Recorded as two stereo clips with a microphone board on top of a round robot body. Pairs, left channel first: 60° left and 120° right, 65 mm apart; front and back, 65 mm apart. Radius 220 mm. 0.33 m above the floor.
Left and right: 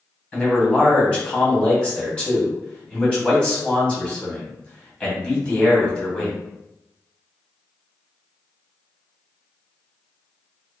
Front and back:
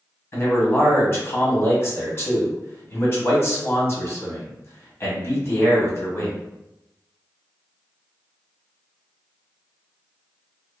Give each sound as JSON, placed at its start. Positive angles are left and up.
{"t": 0.3, "sound": "a man speaking", "azimuth_deg": -5, "distance_m": 1.7}